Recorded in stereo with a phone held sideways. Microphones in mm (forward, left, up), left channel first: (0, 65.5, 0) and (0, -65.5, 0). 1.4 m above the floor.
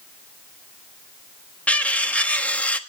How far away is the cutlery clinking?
About 1.1 m.